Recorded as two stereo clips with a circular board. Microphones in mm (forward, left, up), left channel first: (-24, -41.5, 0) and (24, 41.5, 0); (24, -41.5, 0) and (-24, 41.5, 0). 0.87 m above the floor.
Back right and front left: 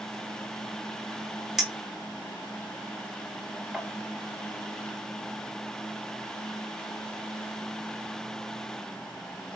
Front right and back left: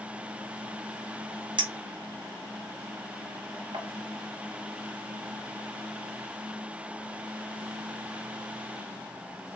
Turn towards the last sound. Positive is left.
turn(degrees=145)